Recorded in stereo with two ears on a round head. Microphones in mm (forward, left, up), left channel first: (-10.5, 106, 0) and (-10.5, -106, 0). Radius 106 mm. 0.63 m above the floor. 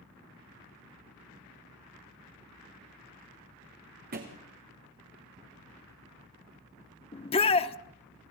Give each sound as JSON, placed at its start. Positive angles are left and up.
{"t": 4.1, "sound": "a thud", "side_deg": -40, "distance_m": 3.5}
{"t": 7.1, "sound": "a shout", "side_deg": 25, "distance_m": 1.0}